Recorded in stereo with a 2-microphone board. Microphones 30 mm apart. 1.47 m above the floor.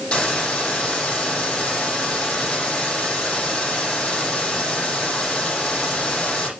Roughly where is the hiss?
Left.